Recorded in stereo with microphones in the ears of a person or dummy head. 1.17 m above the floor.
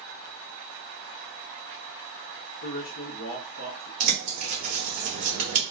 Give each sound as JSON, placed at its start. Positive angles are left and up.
{"t": 2.6, "sound": "a man speaking", "side_deg": 50, "distance_m": 0.7}
{"t": 4.0, "sound": "a bird", "side_deg": -35, "distance_m": 1.0}